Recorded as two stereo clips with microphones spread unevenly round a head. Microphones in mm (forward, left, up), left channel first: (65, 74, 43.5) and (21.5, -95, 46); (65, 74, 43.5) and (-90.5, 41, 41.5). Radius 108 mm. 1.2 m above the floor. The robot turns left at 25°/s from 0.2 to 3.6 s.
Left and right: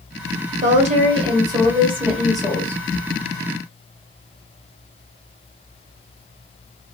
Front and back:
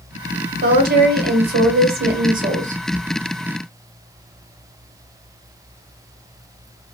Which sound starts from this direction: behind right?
A woman speaking, at 0.6 s.